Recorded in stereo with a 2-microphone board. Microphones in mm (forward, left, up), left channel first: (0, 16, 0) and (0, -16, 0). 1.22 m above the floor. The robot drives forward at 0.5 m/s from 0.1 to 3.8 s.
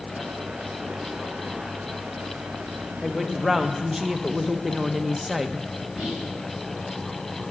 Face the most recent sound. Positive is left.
turn(degrees=-10)  # may be behind; listen again after turning